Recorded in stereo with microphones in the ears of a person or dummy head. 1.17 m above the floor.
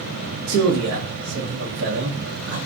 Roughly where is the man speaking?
Right.